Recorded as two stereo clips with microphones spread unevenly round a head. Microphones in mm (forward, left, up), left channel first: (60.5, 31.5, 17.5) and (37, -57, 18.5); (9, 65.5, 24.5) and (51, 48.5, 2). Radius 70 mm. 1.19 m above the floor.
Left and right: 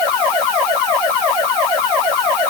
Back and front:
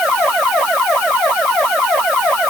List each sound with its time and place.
Only background noise.